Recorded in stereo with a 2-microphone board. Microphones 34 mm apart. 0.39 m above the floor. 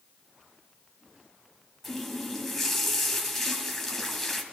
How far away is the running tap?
About 1.5 m.